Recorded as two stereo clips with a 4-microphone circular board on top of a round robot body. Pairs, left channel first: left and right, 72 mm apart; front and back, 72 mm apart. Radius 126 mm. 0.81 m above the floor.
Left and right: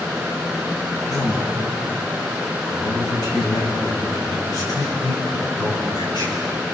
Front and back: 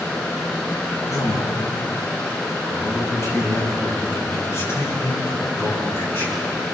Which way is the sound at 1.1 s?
45° left.